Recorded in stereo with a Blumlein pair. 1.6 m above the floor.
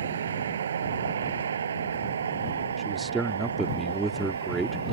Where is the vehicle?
65° right; by 4.9 s 70° right.